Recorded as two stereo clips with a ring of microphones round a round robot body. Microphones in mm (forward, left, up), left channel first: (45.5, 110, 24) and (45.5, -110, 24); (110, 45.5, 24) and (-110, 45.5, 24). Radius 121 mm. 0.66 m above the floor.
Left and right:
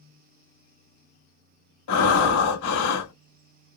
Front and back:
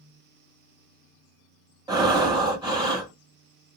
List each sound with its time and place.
1.9 s breathing: 110° left, 1.2 m